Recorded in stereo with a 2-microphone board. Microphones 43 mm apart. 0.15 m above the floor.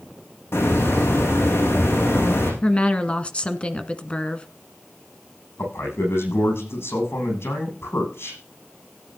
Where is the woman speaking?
25° left (ahead or behind), 1.3 m.